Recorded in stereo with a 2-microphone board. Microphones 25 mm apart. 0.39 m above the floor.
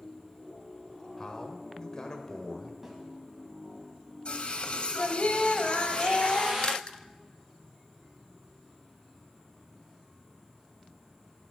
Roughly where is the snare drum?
Centre.